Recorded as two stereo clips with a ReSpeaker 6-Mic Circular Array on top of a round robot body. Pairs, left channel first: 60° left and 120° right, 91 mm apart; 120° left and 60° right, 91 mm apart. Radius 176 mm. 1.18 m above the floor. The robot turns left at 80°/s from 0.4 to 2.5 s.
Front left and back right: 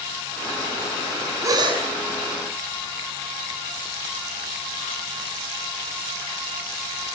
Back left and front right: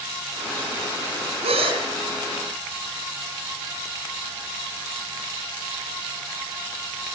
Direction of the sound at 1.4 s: 60° right.